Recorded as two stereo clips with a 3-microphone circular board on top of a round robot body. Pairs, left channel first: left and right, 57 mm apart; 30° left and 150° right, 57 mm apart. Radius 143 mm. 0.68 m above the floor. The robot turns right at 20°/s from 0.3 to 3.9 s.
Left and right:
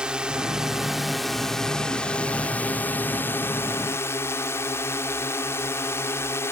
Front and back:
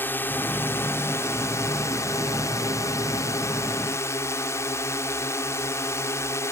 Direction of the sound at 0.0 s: 20° right.